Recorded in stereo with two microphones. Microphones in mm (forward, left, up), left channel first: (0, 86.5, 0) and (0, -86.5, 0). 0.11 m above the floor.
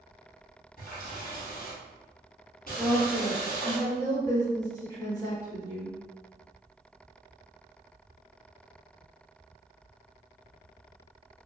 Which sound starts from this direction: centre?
A woman speaking, at 2.8 s.